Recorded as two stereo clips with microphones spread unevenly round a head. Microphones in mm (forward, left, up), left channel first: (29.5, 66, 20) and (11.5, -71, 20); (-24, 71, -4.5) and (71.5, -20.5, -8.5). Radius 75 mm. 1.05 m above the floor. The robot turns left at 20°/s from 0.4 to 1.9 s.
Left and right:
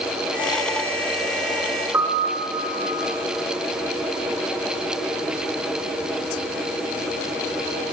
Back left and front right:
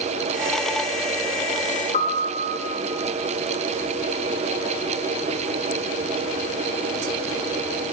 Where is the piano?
170° right, 1.3 m.